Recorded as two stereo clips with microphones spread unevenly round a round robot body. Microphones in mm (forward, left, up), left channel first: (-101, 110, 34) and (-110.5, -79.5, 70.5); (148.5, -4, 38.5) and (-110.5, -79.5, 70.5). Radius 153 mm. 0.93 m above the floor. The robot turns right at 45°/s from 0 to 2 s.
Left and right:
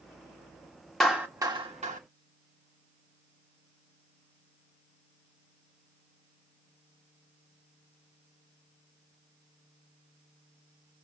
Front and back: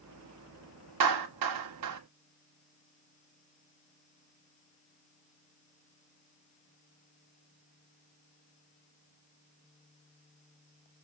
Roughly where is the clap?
Behind.